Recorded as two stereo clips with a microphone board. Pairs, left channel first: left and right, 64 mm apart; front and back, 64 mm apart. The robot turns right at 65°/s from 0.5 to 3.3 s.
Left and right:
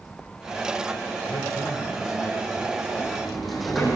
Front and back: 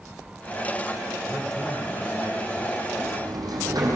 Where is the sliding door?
155° left, 6 m; by 4.0 s straight behind, 6 m.